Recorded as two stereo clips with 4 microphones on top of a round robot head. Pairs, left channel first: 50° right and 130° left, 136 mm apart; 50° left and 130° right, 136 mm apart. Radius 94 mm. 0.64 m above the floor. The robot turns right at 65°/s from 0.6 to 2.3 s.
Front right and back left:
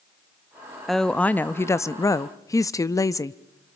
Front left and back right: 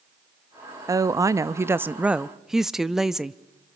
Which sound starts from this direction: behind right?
A woman speaking, at 0.9 s.